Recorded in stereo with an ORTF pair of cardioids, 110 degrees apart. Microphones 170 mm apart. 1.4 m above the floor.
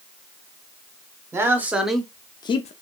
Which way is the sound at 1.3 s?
15° right.